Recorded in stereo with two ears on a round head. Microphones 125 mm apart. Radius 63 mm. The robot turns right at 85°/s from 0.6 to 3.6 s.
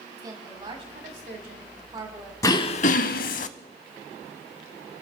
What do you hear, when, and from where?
0.2 s a woman speaking: 145° right, 3 m; by 2.3 s straight ahead, 3 m
2.4 s throat clearing: 25° left, 0.5 m; by 3.5 s 115° left, 0.5 m